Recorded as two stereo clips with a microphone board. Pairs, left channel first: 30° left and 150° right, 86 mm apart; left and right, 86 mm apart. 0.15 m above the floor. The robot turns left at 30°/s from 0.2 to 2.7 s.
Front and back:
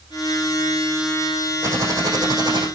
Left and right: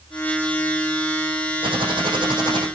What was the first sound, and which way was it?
Typing on a keyboard, 95° right.